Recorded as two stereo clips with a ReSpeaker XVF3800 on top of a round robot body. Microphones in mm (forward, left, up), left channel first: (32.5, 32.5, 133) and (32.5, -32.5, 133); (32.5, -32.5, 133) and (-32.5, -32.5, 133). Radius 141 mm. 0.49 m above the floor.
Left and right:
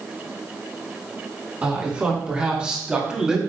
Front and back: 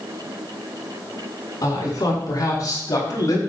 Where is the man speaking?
20° right, 6.5 m; by 3.4 s 10° right, 3.5 m.